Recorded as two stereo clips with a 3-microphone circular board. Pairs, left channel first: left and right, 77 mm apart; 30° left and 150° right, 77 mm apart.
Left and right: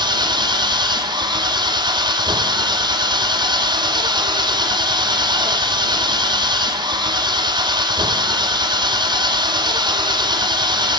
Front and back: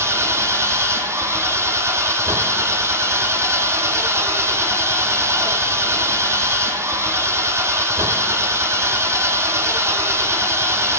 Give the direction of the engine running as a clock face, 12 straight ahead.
3 o'clock.